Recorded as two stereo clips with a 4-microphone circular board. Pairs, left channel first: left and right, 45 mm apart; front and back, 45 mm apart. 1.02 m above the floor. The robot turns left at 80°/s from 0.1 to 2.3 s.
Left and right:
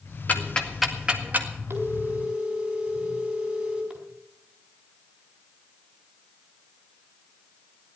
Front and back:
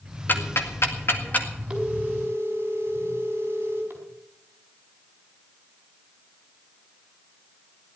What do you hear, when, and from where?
0.3 s ticking: 40° left, 1.9 m; by 1.5 s 55° right, 1.9 m
1.7 s a phone ringing: 100° right, 4.5 m; by 4.0 s 150° right, 4.5 m